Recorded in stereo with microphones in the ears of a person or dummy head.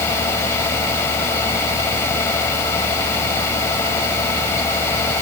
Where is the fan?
15° left (ahead or behind).